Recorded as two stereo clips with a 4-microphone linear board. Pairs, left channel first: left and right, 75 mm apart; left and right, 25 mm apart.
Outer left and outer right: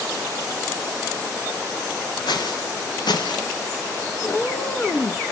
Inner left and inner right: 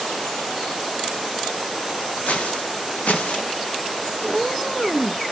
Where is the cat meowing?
25° left (ahead or behind), 0.8 m.